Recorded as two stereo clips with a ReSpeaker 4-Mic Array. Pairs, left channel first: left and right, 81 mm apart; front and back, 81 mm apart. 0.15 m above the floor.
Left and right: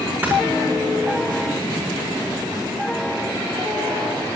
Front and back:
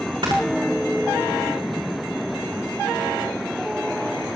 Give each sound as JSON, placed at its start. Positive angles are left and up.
{"t": 0.2, "sound": "snoring", "azimuth_deg": -160, "distance_m": 4.5}